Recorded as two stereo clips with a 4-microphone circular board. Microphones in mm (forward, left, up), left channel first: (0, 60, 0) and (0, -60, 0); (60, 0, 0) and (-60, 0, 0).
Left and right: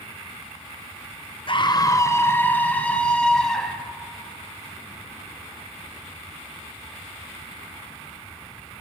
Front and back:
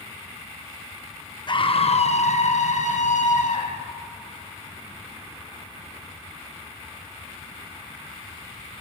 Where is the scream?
50° left, 0.9 m; by 3.9 s 5° left, 3 m.